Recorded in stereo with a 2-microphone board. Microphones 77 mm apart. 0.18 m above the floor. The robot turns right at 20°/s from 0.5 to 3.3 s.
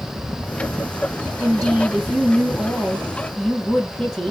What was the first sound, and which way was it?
A woman speaking, 10° right (ahead or behind).